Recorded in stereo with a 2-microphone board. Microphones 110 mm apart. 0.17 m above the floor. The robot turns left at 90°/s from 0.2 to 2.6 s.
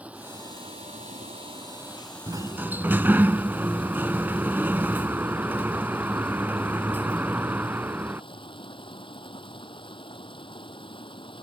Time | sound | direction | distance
0.0 | running water | 10° right | ?
2.3 | a sliding door | 125° right | ?